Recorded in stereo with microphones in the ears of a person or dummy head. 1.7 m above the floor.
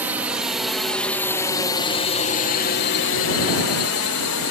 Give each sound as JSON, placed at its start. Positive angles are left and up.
{"t": 0.0, "sound": "a drone", "side_deg": -10}